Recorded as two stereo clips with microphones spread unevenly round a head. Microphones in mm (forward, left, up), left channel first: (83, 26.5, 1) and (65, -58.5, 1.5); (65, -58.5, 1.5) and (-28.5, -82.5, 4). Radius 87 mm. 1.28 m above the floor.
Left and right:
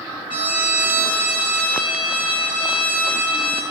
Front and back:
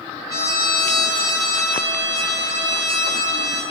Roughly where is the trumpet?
Behind left.